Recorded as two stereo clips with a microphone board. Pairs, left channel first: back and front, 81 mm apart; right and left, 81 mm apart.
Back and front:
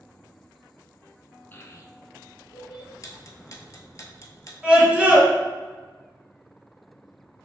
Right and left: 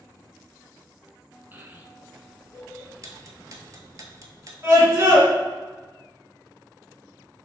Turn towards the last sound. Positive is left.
turn(degrees=65)